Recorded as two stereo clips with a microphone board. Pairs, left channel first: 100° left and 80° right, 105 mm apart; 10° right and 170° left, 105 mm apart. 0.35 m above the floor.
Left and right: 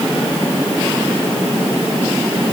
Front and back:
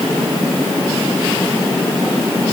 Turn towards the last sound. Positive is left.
No sound to turn to.